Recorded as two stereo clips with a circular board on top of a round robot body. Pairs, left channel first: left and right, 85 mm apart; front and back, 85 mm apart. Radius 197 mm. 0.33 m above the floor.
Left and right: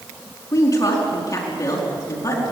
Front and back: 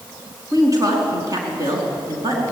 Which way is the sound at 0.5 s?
135° left.